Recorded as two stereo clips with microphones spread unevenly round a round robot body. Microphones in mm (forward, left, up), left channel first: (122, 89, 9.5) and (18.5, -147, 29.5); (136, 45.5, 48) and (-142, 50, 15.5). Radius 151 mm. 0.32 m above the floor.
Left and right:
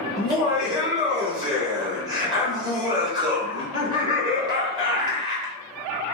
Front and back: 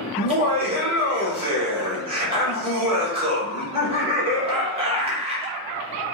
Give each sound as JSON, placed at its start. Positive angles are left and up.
{"t": 0.2, "sound": "laughter", "azimuth_deg": 180, "distance_m": 0.9}